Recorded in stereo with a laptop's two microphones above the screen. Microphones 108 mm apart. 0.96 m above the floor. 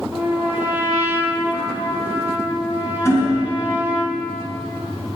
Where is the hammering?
25° left (ahead or behind), 2.5 m.